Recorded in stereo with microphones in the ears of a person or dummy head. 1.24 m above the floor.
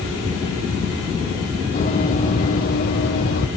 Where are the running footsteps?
40° left (ahead or behind), 2 m; by 3.5 s 60° left (ahead or behind), 2.5 m.